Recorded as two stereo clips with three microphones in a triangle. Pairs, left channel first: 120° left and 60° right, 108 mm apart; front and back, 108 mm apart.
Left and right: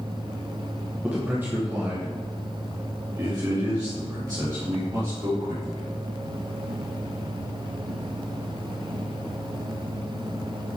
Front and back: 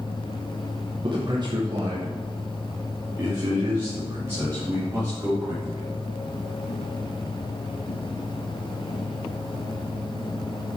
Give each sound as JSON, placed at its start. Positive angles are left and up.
{"t": 1.0, "sound": "a man speaking", "azimuth_deg": -140, "distance_m": 1.2}